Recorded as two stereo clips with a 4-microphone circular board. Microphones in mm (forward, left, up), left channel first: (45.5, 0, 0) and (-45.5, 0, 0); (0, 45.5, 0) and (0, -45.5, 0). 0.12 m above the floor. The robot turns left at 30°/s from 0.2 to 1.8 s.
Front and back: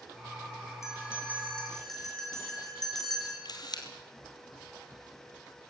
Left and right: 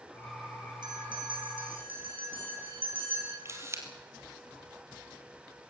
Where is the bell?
55° right, 5 m; by 3.4 s 85° right, 5 m.